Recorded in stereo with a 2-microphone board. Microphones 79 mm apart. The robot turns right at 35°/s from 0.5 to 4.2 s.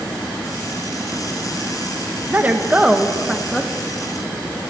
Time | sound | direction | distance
2.3 | a woman speaking | 40° right | 0.7 m